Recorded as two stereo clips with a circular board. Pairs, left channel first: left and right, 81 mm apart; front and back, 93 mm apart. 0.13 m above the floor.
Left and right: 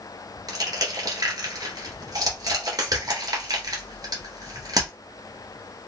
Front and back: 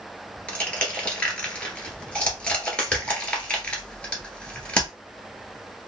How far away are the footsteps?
I don't hear footsteps.